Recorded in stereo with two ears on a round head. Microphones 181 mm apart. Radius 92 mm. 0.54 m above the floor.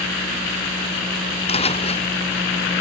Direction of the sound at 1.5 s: 30° left (ahead or behind).